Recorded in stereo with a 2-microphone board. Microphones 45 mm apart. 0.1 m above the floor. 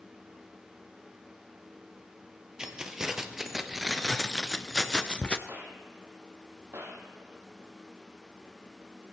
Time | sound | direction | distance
2.6 | keys jangling | 15° right (ahead or behind) | 1.9 m
5.5 | a gunshot | 65° right (ahead or behind) | 2.5 m